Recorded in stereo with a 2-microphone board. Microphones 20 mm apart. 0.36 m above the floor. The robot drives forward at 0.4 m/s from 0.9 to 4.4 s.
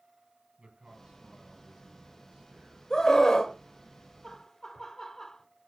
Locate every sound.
0.6 s a man speaking: 80° right, 6.5 m
2.9 s a scream: 35° left (ahead or behind), 1.6 m
4.2 s laughter: 25° left (ahead or behind), 1.3 m